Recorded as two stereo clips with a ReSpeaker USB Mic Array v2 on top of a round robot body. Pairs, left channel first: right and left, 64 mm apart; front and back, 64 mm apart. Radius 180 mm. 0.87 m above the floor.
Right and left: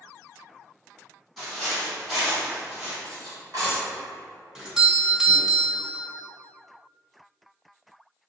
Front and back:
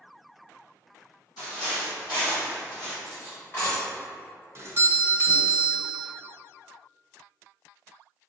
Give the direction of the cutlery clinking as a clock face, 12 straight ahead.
10 o'clock.